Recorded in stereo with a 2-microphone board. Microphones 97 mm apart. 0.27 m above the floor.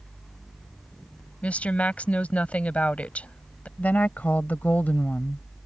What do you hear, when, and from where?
1.4 s a woman speaking: 15° left (ahead or behind)
3.8 s a woman speaking: 15° left (ahead or behind)